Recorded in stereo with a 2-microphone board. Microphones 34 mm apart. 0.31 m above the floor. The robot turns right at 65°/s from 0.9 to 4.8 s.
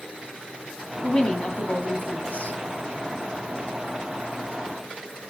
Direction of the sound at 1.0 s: 25° left.